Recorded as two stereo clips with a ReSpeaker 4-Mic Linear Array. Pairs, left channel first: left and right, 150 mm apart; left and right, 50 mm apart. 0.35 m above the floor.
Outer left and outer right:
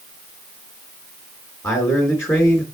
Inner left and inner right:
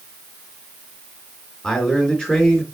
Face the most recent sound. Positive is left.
turn(degrees=20)  # may be behind; listen again after turning